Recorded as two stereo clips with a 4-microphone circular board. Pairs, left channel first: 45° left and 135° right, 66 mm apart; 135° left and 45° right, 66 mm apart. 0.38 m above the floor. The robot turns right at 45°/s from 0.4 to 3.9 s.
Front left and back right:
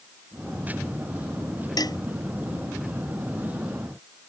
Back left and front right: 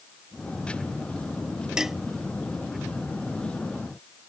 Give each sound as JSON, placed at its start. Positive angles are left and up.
{"t": 1.8, "sound": "dishes clattering", "azimuth_deg": 35}